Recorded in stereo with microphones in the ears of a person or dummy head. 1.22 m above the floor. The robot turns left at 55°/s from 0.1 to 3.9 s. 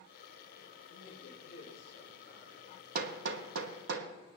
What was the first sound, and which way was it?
A man speaking, 90° left.